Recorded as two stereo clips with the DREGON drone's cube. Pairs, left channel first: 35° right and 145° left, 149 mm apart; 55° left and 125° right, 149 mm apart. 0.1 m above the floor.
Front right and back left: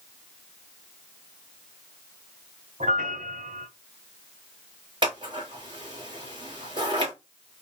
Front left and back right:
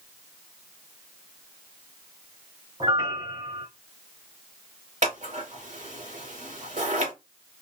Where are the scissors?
160° right, 2.5 m.